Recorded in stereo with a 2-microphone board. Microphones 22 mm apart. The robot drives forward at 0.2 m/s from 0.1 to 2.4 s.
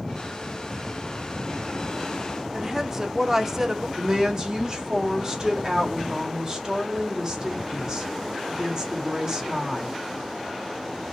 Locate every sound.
2.5 s a woman speaking: 20° right (ahead or behind), 0.9 m
4.0 s a woman speaking: 30° right (ahead or behind), 1.7 m